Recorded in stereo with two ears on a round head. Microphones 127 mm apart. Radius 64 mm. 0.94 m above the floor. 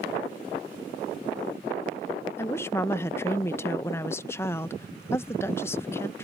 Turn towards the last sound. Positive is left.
turn(degrees=20)  # may be behind; listen again after turning